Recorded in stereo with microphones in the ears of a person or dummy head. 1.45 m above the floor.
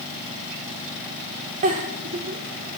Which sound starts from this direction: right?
A giggle, at 1.6 s.